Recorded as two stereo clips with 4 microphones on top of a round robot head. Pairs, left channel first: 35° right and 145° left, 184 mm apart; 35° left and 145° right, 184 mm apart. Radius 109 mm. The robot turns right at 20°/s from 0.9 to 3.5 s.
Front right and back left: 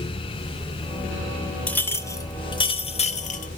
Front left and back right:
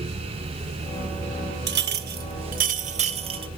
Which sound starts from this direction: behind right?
A clink, at 1.7 s.